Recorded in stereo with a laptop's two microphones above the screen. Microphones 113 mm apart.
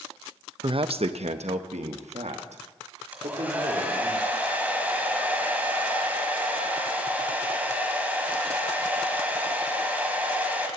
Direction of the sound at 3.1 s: 15° right (ahead or behind).